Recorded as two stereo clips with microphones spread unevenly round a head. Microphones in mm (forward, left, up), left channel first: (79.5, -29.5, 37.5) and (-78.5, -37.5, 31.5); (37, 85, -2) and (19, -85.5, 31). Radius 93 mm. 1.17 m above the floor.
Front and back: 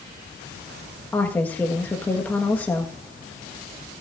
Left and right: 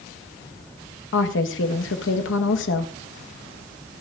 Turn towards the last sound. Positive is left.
turn(degrees=85)